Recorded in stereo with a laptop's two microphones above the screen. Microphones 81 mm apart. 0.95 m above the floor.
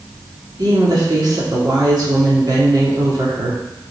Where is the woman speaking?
55° right (ahead or behind), 1.8 m.